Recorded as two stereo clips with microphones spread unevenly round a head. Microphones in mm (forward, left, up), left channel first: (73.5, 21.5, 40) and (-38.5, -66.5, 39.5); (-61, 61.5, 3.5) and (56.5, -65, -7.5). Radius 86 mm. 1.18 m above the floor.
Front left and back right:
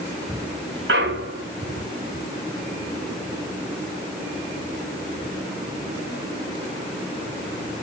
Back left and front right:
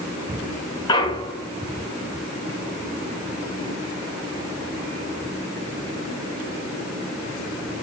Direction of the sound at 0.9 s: 165° right.